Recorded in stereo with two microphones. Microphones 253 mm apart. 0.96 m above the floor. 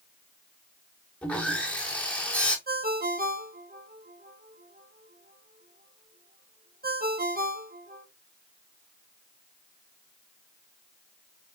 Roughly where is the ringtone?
Right.